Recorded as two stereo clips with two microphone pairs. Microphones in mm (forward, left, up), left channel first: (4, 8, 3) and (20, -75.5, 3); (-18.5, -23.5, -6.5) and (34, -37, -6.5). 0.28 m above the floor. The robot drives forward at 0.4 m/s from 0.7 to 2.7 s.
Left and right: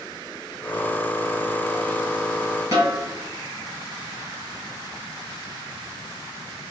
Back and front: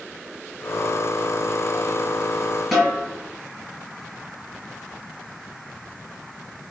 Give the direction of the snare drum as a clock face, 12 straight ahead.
4 o'clock.